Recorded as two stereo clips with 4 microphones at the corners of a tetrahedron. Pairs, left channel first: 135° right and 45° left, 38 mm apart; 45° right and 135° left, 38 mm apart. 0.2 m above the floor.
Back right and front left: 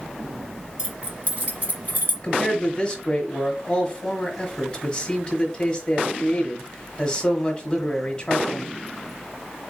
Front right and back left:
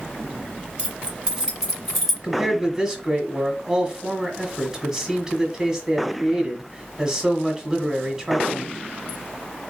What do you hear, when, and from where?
0.8 s keys jangling: 90° left, 1.3 m; by 2.1 s 45° left, 1.6 m
2.2 s a man speaking: 175° right, 1.4 m